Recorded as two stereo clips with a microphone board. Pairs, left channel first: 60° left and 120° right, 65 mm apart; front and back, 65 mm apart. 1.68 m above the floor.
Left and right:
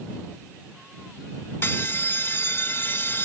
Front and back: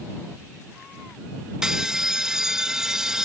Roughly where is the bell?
Left.